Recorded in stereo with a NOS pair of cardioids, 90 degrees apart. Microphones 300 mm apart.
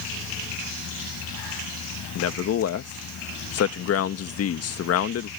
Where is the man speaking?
50° left.